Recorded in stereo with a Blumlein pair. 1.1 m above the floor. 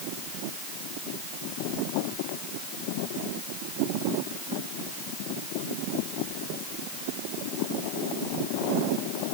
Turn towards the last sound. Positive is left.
No sound to turn to.